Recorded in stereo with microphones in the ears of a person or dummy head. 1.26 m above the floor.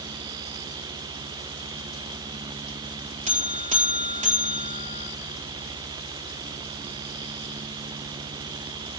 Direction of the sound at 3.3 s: 35° right (ahead or behind).